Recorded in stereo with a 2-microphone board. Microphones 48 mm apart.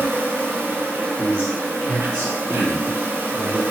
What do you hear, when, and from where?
0.0 s an insect: 60° right (ahead or behind), 0.7 m
1.2 s a man speaking: 10° left (ahead or behind), 1.5 m